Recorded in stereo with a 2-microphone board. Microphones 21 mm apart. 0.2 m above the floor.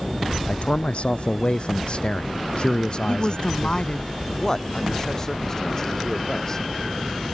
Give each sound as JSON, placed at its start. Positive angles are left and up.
{"t": 0.5, "sound": "a man speaking", "side_deg": 65}
{"t": 3.1, "sound": "a woman speaking", "side_deg": 45}
{"t": 4.4, "sound": "a man speaking", "side_deg": 25}